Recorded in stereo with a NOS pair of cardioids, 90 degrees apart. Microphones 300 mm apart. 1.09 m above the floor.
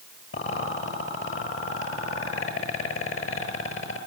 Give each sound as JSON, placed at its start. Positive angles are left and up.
{"t": 0.3, "sound": "a rattle", "azimuth_deg": 45, "distance_m": 7.5}